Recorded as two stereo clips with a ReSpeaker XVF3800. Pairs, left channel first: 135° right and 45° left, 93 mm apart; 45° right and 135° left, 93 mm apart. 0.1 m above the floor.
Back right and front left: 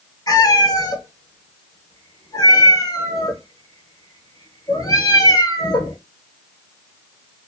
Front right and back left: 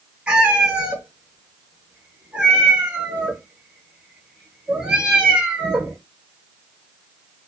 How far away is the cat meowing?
About 0.8 m.